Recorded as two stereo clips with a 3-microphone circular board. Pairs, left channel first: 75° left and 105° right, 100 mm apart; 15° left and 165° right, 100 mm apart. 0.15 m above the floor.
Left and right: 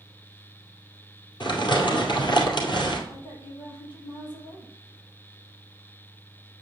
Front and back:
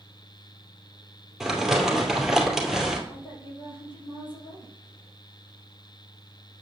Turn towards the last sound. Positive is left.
turn(degrees=45)